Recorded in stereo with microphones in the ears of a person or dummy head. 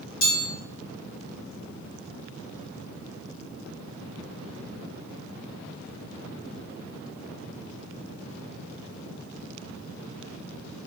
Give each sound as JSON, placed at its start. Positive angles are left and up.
{"t": 0.2, "sound": "a chime", "side_deg": 85, "distance_m": 1.5}